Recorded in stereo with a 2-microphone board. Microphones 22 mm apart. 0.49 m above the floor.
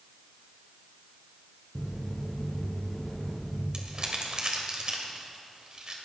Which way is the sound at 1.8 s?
Centre (ahead or behind).